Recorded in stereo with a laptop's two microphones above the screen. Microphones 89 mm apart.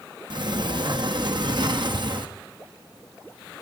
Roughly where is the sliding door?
Right.